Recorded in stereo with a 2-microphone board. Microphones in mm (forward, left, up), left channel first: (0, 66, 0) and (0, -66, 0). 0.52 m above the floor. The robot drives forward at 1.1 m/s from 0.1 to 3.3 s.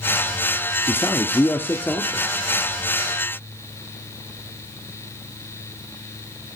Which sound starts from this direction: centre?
A man speaking, at 0.9 s.